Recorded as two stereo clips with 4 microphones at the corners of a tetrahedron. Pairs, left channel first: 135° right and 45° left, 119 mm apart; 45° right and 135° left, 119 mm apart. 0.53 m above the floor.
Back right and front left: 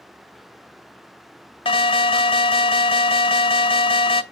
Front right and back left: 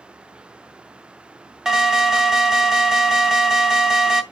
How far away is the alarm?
About 0.7 m.